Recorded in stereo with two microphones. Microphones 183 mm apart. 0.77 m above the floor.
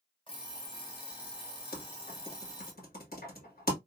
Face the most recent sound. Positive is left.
turn(degrees=55)  # may be behind; listen again after turning